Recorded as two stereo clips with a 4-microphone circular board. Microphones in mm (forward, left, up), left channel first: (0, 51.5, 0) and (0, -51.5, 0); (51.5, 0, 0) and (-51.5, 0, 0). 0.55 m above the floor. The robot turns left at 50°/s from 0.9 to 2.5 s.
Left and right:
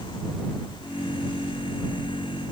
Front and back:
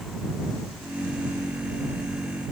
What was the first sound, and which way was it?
Only background noise.